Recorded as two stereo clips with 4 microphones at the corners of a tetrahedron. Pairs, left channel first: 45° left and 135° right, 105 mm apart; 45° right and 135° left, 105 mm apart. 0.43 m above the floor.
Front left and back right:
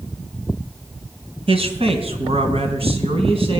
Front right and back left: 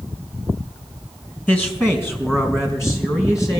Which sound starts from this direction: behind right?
A man speaking, at 1.5 s.